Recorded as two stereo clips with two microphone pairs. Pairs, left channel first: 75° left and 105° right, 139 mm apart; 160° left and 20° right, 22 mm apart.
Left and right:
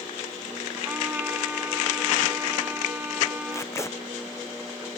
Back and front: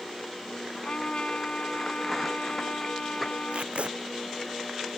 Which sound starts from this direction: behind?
A trumpet, at 0.8 s.